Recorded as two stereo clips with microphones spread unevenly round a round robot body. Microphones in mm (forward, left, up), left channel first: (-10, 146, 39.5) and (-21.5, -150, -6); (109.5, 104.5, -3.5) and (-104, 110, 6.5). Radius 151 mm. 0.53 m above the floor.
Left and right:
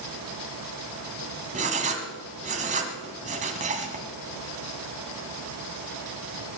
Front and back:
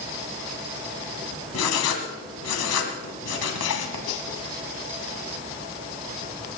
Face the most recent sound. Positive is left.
turn(degrees=-25)